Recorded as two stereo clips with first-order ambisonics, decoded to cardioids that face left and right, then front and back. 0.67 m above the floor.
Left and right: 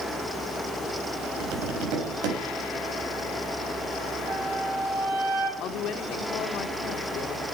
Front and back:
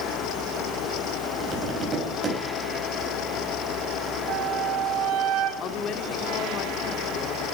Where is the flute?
145° right, 2.5 m.